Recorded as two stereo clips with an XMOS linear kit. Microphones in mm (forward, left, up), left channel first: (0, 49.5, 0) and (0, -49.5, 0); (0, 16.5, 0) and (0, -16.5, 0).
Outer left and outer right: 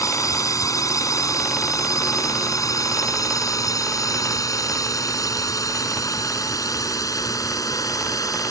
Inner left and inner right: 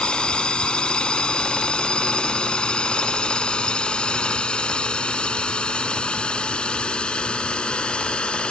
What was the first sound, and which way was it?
A drone, 35° left (ahead or behind).